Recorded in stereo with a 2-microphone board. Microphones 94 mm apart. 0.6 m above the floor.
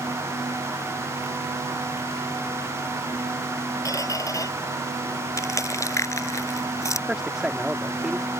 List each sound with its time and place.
3.9 s a squeak: 35° left (ahead or behind)
5.4 s crushing: 35° left (ahead or behind)
7.1 s a man speaking: 5° right (ahead or behind)